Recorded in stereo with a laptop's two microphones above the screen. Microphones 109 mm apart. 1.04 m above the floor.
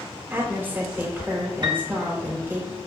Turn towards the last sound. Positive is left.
turn(degrees=-40)  # may be behind; listen again after turning